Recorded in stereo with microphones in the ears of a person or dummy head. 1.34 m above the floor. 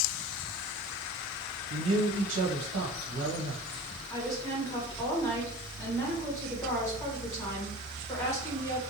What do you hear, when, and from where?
1.7 s a man speaking: 75° right (ahead or behind), 0.8 m
4.1 s a woman speaking: 20° left (ahead or behind), 1.4 m